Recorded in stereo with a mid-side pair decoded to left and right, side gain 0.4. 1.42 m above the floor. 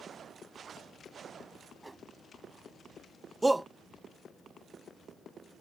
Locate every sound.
1.8 s a whoosh: 15° right
3.4 s a shout: 15° right